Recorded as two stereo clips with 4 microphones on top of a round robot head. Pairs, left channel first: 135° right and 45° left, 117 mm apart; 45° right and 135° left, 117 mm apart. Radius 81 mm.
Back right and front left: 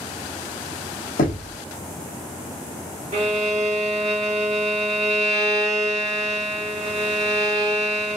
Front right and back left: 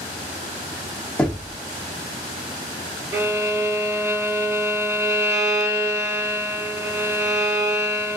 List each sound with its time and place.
1.2 s knocking: 125° right, 0.7 m
3.1 s a violin: 70° left, 0.8 m